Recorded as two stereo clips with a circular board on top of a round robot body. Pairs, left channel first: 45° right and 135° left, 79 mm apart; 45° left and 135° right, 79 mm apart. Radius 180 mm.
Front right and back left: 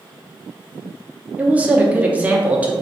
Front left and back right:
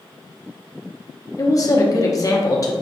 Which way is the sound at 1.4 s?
70° left.